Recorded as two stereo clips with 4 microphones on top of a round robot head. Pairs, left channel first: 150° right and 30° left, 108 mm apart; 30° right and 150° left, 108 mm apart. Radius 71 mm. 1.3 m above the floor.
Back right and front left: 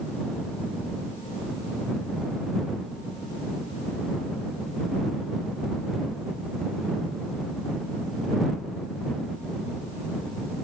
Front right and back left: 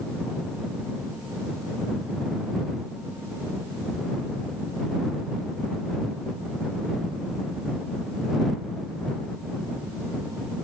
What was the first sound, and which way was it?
Only background noise.